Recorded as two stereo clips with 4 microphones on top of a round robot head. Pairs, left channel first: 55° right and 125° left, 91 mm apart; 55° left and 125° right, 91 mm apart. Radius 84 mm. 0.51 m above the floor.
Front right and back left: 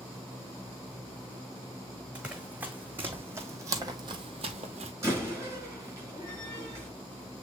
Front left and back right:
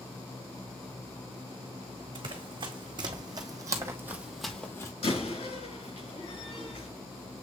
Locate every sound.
2.1 s running footsteps: 160° right, 1.6 m; by 4.9 s 110° left, 0.7 m
5.0 s a door slam: 60° left, 4.5 m